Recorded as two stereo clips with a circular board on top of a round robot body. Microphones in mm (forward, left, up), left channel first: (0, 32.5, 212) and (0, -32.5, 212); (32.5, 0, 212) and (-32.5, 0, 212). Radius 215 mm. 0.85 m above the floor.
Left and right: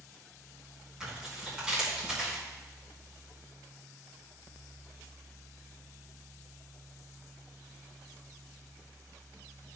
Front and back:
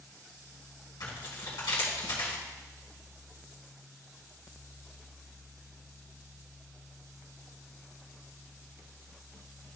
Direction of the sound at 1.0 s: 15° right.